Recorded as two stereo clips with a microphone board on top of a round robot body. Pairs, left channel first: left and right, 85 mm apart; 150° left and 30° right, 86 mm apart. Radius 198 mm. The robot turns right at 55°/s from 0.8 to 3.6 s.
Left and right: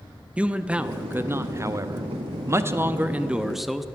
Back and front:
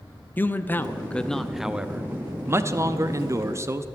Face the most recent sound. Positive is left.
turn(degrees=-5)